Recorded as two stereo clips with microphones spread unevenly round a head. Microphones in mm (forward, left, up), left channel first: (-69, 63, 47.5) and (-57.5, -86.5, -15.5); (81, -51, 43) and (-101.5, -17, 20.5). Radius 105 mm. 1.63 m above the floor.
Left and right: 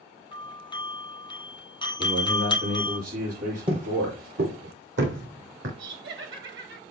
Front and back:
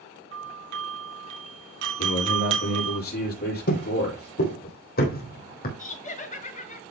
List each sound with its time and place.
0.3 s a doorbell: 160° left, 2.5 m
2.0 s a man speaking: 50° right, 7 m
3.7 s footsteps: 10° right, 2.5 m; by 5.7 s 45° right, 4.5 m
5.8 s laughter: 60° right, 2 m